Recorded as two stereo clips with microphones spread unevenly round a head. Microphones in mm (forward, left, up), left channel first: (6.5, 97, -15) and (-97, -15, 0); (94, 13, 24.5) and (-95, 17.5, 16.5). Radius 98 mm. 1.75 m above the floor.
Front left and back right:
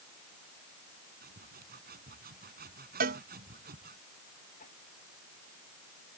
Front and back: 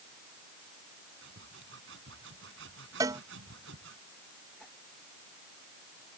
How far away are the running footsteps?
No running footsteps in this recording.